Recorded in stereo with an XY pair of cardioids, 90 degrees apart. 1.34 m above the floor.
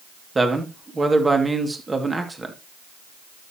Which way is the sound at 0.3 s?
25° right.